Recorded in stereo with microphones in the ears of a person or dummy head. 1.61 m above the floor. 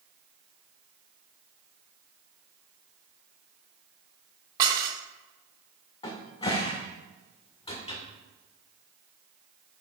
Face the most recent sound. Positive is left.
turn(degrees=25)  # may be behind; listen again after turning